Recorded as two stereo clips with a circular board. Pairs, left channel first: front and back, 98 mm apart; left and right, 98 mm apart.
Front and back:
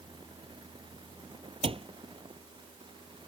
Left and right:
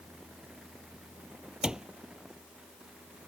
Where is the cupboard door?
170° right.